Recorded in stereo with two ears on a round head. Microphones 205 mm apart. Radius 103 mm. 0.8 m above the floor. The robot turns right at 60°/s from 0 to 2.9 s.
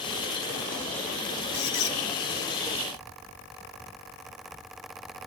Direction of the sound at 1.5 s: 80° left.